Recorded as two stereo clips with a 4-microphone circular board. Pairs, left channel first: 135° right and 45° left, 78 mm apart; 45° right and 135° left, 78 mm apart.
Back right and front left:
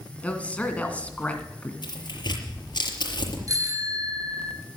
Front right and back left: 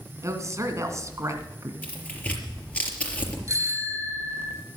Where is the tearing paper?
120° right, 4.5 m.